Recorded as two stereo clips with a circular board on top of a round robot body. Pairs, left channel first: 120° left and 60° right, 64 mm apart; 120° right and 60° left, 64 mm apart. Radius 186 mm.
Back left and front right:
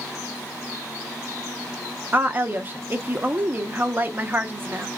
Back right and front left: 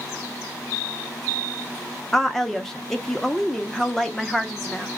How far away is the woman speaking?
About 1.0 m.